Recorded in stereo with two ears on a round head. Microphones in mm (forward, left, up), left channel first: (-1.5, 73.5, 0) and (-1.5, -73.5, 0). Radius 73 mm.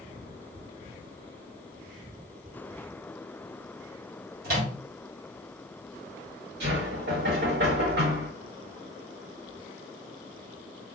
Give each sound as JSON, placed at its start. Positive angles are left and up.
{"t": 4.4, "sound": "a microwave", "side_deg": -60, "distance_m": 1.2}
{"t": 6.6, "sound": "knocking", "side_deg": -65, "distance_m": 1.2}